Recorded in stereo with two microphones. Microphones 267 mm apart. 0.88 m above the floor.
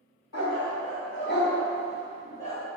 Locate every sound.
0.3 s a dog barking: 65° left (ahead or behind), 1.0 m; by 2.6 s 10° left (ahead or behind), 1.3 m